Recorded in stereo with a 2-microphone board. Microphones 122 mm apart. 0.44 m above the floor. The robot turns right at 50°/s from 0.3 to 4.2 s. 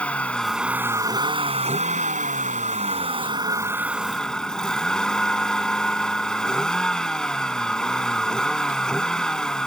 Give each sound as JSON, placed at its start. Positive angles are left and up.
{"t": 0.0, "sound": "a vehicle", "azimuth_deg": 170}